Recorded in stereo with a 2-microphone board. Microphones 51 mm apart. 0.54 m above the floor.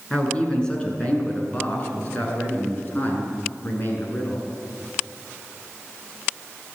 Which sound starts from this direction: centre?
A man speaking, at 0.1 s.